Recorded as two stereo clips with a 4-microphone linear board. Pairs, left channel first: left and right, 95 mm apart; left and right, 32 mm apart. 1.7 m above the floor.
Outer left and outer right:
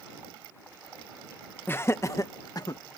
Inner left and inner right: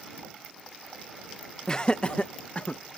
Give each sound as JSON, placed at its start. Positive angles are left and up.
{"t": 1.7, "sound": "laughter", "side_deg": 25}